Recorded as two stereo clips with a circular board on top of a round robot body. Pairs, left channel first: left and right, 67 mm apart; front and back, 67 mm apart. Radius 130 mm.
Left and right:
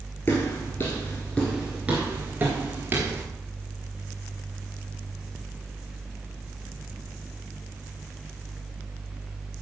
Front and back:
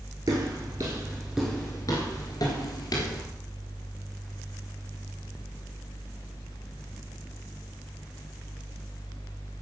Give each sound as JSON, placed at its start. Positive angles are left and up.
{"t": 0.3, "sound": "footsteps", "azimuth_deg": 145, "distance_m": 1.3}